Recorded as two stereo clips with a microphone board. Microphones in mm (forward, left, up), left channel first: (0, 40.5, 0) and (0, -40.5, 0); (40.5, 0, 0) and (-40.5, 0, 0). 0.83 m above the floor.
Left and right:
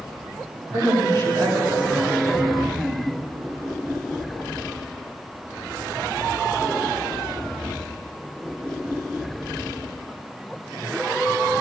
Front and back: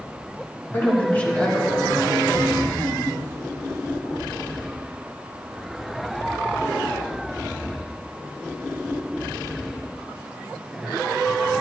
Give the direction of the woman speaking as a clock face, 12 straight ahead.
2 o'clock.